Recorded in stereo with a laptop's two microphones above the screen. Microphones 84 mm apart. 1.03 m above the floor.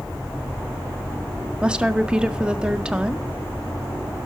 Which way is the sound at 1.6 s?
10° right (ahead or behind).